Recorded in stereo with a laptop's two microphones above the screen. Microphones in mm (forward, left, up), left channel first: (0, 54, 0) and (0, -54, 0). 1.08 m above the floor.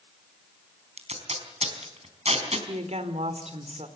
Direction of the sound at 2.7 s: 80° right.